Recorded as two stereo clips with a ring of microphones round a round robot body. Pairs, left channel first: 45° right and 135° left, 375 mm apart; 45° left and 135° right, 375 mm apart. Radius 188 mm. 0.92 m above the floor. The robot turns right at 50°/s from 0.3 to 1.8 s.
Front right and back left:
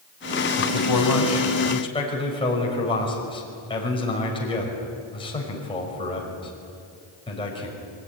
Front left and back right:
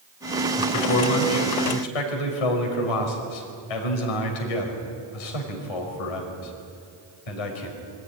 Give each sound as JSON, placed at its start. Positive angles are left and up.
{"t": 0.6, "sound": "a man speaking", "azimuth_deg": -30, "distance_m": 5.0}